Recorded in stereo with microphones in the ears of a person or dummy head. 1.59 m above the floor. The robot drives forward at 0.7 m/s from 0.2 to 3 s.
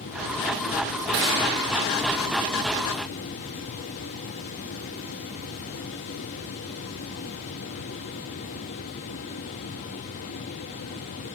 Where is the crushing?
55° right (ahead or behind), 1.6 m; by 1.4 s 60° right (ahead or behind), 1.6 m.